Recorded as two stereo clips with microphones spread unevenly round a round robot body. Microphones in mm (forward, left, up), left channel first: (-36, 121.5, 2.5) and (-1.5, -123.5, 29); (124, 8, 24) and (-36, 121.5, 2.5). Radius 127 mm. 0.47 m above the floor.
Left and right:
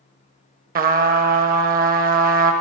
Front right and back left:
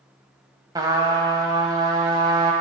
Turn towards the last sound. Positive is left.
turn(degrees=-140)